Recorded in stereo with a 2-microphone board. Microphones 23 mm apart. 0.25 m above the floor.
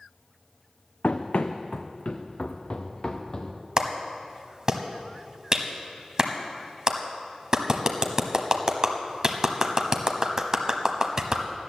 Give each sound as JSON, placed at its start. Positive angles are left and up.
{"t": 1.0, "sound": "running footsteps", "side_deg": 80, "distance_m": 1.0}
{"t": 3.8, "sound": "a clap", "side_deg": -30, "distance_m": 1.0}